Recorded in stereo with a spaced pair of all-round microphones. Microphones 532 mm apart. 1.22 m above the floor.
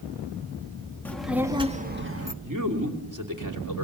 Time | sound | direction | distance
1.1 | a child speaking | 5° left (ahead or behind) | 1.9 m
2.4 | a man speaking | 35° right (ahead or behind) | 3 m